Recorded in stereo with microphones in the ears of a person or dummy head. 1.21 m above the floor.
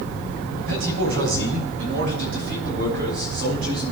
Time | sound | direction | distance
0.6 | a man speaking | 75° right (ahead or behind) | 3.5 m